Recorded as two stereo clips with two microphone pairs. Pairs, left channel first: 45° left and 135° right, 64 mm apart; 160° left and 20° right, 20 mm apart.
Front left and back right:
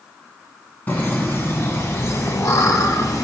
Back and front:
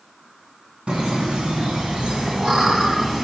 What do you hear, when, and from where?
0.9 s laughter: 10° right, 1.9 m; by 3.2 s 40° left, 1.6 m